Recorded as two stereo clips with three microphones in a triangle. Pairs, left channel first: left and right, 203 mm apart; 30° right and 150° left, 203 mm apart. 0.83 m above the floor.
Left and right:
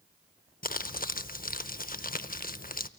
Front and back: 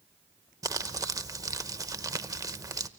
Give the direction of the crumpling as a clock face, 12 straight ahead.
9 o'clock.